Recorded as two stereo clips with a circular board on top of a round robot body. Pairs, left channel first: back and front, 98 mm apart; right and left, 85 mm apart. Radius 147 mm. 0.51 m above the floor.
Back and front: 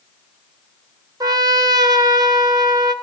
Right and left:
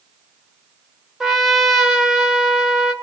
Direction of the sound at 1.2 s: 5° left.